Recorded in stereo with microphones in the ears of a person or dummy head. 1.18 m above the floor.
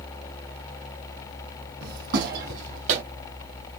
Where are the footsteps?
65° right (ahead or behind), 3 m; by 3.0 s 50° right (ahead or behind), 2 m.